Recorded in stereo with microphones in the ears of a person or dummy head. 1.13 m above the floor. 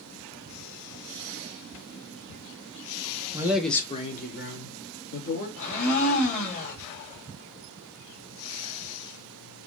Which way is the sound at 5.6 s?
40° left (ahead or behind).